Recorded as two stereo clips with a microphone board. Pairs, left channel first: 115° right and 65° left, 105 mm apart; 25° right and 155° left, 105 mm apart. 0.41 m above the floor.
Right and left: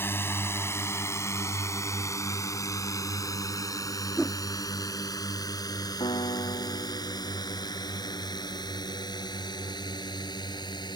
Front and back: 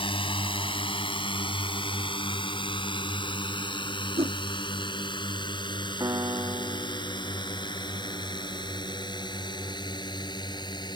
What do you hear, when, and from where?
0.0 s a drone: 45° right; by 11.0 s 65° right
4.2 s a whoosh: 155° left
6.0 s a piano: 145° right